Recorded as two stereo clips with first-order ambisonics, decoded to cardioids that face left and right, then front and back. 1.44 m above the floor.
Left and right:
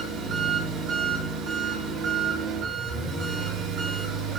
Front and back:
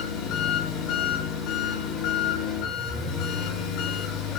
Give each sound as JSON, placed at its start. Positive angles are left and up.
{"t": 0.0, "sound": "an engine running", "azimuth_deg": -30, "distance_m": 8.5}